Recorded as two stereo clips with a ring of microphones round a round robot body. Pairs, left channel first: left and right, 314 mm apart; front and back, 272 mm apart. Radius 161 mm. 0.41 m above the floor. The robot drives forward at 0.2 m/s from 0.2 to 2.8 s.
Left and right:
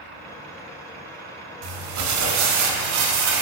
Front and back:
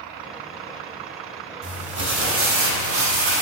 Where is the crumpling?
120° right, 0.9 m; by 3.4 s 135° right, 1.0 m.